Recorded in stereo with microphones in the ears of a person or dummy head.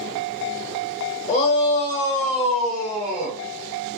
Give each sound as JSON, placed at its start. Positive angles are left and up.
{"t": 1.3, "sound": "a shout", "side_deg": 35, "distance_m": 0.9}